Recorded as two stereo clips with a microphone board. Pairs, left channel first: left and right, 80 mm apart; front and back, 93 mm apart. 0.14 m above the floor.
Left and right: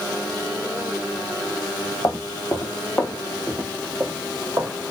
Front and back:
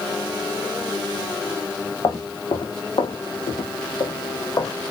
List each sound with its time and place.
2.0 s footsteps: 45° left, 1.3 m; by 4.7 s 45° right, 1.2 m